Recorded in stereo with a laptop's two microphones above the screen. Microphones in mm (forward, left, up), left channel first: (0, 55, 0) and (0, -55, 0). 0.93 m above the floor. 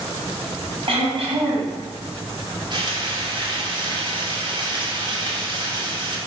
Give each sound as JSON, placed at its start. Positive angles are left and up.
{"t": 0.9, "sound": "throat clearing", "side_deg": -55, "distance_m": 4.0}
{"t": 2.7, "sound": "frying", "side_deg": -45, "distance_m": 2.5}